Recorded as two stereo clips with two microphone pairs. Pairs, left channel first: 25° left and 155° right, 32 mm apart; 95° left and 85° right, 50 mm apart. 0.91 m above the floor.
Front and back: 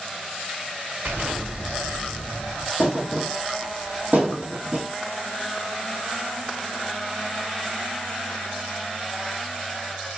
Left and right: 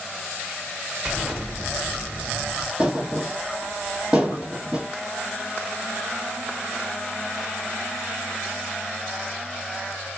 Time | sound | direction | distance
1.1 | an explosion | 160° right | 0.9 m
2.8 | a thud | 150° right | 1.5 m